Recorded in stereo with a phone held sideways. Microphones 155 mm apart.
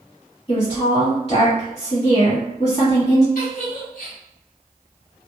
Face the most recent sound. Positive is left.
turn(degrees=65)  # may be behind; listen again after turning